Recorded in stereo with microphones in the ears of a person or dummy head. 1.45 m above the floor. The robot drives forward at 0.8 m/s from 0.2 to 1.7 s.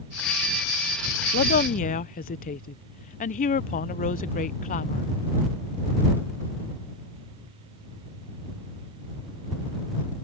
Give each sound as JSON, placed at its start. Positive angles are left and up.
{"t": 1.3, "sound": "a woman speaking", "side_deg": 50}